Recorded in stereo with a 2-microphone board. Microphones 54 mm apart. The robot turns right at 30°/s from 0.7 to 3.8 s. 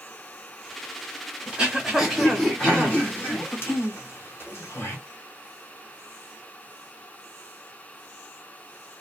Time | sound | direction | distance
1.5 | throat clearing | 15° right (ahead or behind) | 1.3 m